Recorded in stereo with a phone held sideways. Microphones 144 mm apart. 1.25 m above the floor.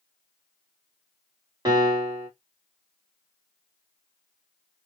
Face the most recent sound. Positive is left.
turn(degrees=-25)  # may be behind; listen again after turning